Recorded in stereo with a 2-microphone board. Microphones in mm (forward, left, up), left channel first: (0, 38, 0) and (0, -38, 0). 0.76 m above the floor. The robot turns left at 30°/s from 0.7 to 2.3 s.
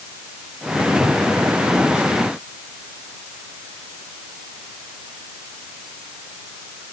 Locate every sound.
Only background noise.